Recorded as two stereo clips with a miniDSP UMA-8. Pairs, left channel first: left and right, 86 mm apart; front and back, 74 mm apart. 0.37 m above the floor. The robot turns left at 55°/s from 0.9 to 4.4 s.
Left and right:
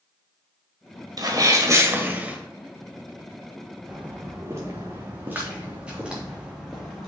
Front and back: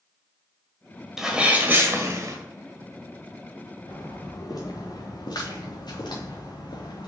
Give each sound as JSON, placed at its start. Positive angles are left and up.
{"t": 1.2, "sound": "a sneeze", "azimuth_deg": -100, "distance_m": 1.4}
{"t": 3.9, "sound": "footsteps", "azimuth_deg": -10, "distance_m": 3.0}